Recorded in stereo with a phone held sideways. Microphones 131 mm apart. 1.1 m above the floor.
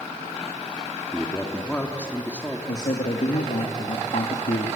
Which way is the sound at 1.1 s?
10° left (ahead or behind).